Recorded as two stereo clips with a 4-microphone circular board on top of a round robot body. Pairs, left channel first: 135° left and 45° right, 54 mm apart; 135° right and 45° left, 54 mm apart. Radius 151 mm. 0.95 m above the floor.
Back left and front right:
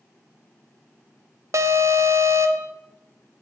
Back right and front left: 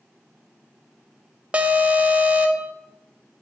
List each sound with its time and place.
1.5 s an alarm: 25° right, 0.6 m